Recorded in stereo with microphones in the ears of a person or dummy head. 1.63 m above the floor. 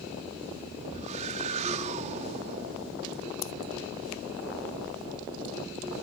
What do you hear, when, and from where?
0.9 s a whoosh: 40° right (ahead or behind)
3.4 s scissors: 75° left (ahead or behind)